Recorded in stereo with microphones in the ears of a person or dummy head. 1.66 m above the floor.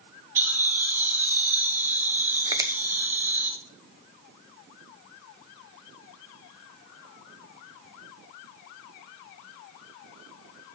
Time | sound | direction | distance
0.3 | laughter | 10° right (ahead or behind) | 2.0 m
2.5 | a finger snap | 20° right (ahead or behind) | 0.8 m